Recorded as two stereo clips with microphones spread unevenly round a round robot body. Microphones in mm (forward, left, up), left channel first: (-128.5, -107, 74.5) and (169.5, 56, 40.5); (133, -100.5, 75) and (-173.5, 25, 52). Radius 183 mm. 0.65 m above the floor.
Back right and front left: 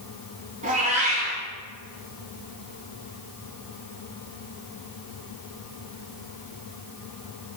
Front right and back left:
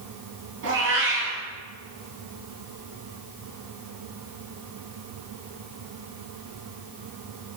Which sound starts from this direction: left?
A cat meowing, at 0.6 s.